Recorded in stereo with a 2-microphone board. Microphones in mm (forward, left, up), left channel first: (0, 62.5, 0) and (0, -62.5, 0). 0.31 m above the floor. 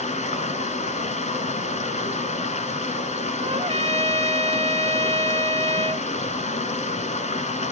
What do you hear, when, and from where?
0.0 s running water: 75° left (ahead or behind), 1.2 m
3.4 s a trumpet: 55° right (ahead or behind), 0.6 m